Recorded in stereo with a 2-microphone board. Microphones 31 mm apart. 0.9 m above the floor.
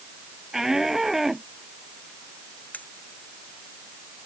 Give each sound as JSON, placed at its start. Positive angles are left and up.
{"t": 0.5, "sound": "a shout", "side_deg": -15}
{"t": 2.7, "sound": "cutlery clinking", "side_deg": 70}